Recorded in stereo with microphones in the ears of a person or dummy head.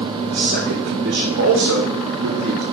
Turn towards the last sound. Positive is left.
turn(degrees=-65)  # may be behind; listen again after turning